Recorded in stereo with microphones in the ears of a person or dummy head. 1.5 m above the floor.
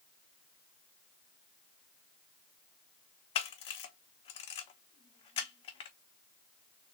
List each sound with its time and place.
3.4 s a camera shutter: 35° left (ahead or behind), 0.9 m